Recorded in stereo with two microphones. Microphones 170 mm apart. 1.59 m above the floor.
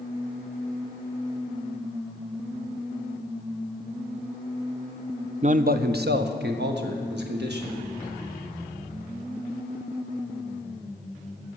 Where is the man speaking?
40° right (ahead or behind), 0.6 m; by 7.8 s 85° right, 2.5 m.